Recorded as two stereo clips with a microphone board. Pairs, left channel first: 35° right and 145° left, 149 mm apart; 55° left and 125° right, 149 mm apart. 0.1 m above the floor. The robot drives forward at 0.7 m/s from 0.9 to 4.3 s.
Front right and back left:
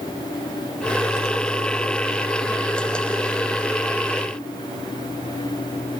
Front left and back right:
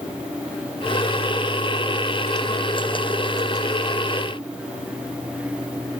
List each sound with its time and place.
Only background noise.